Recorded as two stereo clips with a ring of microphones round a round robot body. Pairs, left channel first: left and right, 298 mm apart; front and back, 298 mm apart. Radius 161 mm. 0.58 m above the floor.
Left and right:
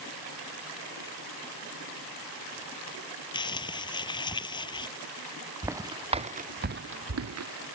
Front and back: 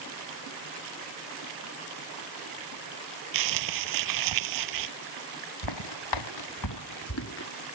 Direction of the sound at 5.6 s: 10° right.